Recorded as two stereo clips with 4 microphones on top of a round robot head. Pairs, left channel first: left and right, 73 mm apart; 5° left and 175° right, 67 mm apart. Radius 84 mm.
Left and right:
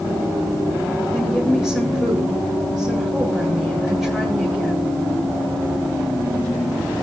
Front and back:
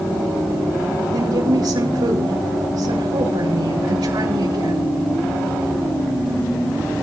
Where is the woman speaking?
175° right, 5.5 m.